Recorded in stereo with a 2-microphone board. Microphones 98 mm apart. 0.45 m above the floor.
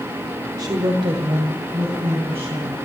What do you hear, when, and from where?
0.6 s a woman speaking: 45° right (ahead or behind), 1.3 m; by 2.8 s 75° right (ahead or behind), 4 m